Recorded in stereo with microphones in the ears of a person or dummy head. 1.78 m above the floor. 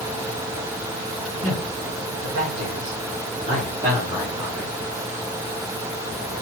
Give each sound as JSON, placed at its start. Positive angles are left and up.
{"t": 1.4, "sound": "a man speaking", "side_deg": -70, "distance_m": 1.4}